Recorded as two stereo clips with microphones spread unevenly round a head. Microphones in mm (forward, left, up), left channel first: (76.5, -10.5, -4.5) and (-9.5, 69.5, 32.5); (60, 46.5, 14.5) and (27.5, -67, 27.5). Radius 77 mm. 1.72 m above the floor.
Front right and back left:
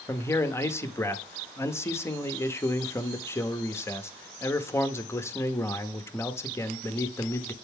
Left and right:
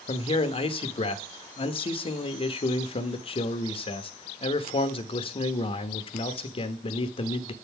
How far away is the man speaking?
About 1.0 m.